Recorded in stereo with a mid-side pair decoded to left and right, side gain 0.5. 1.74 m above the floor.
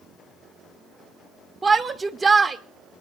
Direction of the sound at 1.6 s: 30° right.